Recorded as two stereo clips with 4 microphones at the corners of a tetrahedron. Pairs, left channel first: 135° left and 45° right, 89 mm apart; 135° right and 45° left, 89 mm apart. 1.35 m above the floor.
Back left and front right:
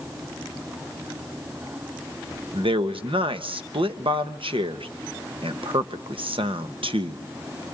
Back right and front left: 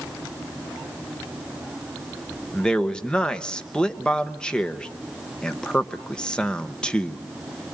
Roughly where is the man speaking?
Ahead right.